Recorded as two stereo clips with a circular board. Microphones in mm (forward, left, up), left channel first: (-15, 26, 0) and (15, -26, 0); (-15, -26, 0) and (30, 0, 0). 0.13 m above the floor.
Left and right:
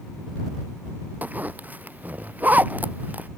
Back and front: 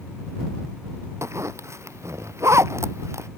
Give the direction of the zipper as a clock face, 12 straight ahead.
12 o'clock.